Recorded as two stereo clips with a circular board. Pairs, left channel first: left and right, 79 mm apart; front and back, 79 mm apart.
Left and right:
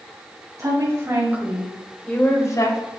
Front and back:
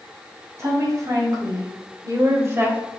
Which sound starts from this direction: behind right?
A woman speaking, at 0.6 s.